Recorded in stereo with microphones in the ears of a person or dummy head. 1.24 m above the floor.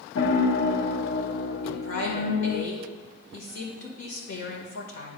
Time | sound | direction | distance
0.1 | a piano | 65° left (ahead or behind) | 0.8 m
1.6 | a woman speaking | 65° left (ahead or behind) | 1.5 m